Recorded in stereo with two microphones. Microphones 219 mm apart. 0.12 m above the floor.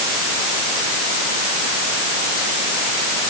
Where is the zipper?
I don't hear a zipper.